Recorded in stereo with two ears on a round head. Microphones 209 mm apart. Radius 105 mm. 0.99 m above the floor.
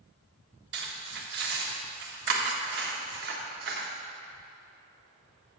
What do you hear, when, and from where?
0.7 s cutlery clinking: 45° right (ahead or behind), 1.4 m